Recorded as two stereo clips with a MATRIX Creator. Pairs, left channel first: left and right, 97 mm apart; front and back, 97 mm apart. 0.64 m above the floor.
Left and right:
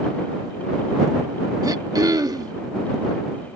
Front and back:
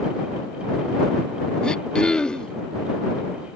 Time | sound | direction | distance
1.6 | throat clearing | 75° right | ?